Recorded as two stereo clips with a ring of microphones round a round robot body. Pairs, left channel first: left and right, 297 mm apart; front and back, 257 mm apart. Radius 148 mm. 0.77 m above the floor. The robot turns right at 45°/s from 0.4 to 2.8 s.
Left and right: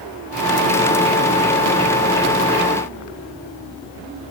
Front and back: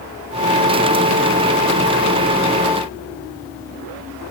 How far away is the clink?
No clink in this recording.